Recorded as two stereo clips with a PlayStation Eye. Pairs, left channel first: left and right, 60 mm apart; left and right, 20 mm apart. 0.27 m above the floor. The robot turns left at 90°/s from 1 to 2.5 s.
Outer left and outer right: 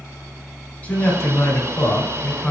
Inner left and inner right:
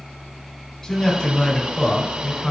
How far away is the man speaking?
About 1.8 m.